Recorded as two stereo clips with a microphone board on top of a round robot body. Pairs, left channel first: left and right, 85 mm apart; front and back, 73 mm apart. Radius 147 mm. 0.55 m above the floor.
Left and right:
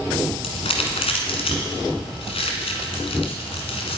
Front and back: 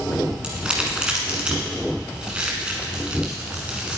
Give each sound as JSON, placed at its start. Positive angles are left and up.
{"t": 0.4, "sound": "crumpling", "azimuth_deg": 105, "distance_m": 1.1}